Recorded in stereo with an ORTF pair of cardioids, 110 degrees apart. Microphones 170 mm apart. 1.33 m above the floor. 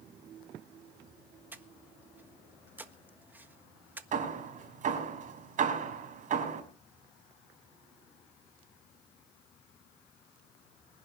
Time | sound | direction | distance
1.5 | breathing | 10° right | 1.3 m
4.1 | hammering | 50° right | 5.5 m